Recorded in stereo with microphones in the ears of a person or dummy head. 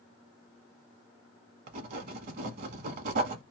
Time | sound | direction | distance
1.7 | writing | 45° right (ahead or behind) | 1.0 m